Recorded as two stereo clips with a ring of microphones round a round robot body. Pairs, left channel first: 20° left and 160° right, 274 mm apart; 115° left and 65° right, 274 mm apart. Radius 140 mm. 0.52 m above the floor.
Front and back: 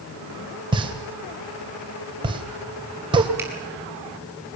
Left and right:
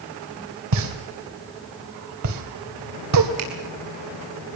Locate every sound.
0.7 s a pop: 85° right, 2.5 m
3.4 s a finger snap: 75° right, 5.5 m